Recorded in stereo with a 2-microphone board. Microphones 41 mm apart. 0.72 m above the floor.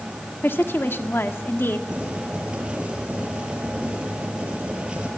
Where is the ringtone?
I don't hear a ringtone.